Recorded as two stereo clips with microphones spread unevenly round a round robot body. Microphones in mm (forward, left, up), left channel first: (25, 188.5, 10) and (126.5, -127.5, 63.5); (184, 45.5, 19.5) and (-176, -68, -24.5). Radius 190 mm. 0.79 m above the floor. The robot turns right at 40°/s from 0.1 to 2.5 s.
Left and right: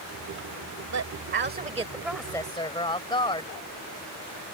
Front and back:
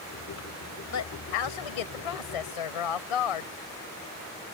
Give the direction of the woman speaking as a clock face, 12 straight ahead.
1 o'clock.